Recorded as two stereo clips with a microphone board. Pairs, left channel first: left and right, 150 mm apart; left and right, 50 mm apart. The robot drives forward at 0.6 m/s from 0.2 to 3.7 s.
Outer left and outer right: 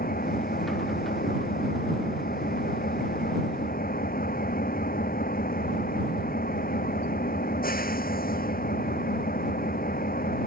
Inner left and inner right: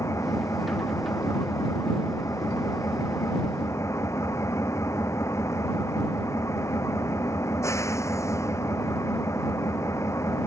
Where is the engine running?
75° left (ahead or behind).